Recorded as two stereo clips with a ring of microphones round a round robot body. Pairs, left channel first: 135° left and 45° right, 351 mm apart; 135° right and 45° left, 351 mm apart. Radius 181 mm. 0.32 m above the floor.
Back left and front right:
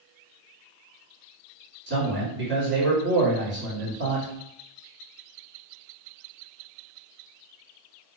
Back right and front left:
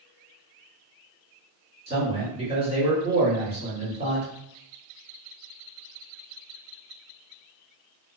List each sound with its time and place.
1.9 s a man speaking: 15° right, 1.5 m